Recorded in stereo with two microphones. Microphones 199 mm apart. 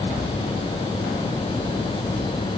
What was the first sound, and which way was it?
Only background noise.